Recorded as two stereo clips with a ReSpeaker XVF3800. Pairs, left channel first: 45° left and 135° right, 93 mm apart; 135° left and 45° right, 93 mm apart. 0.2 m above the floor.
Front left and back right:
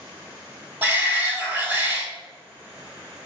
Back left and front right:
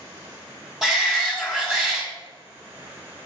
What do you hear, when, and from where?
0.8 s a shout: 115° right, 1.6 m